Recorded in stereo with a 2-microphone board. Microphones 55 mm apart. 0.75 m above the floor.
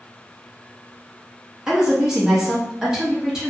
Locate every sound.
1.7 s a woman speaking: 10° right (ahead or behind), 0.7 m